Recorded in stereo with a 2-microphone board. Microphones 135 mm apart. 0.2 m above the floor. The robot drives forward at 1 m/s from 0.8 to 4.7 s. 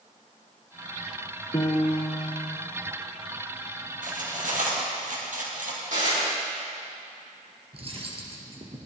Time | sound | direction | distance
1.5 | a piano | 25° left (ahead or behind) | 2.5 m
4.0 | cutlery clinking | 80° right | 3 m
5.9 | dishes clattering | 75° right (ahead or behind) | 5 m
7.7 | cutlery clinking | 45° right (ahead or behind) | 2.5 m